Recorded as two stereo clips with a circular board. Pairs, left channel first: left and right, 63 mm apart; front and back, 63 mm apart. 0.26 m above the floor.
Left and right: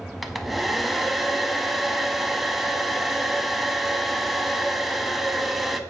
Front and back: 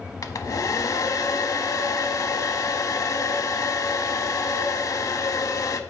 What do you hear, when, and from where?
0.2 s a hair dryer: 5° right, 0.5 m